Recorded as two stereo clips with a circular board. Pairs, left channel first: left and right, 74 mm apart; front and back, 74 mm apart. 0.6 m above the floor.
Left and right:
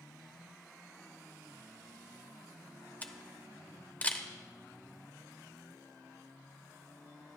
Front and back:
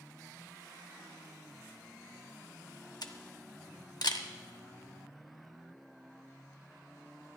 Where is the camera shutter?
25° left, 0.8 m.